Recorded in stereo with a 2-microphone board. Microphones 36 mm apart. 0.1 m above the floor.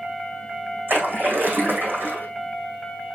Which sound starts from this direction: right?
A splash, at 0.9 s.